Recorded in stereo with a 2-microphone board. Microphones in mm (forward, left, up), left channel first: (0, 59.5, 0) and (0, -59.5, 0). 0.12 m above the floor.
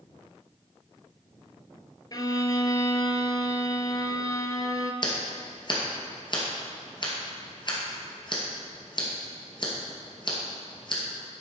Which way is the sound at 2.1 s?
35° left (ahead or behind).